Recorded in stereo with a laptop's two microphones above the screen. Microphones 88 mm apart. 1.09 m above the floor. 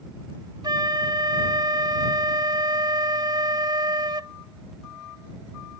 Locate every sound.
0.6 s a flute: 50° right (ahead or behind)